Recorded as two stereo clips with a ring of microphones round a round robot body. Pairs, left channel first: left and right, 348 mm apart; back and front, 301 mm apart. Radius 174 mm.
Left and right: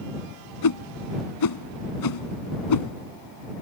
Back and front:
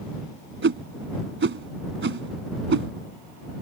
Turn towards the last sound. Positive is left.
turn(degrees=55)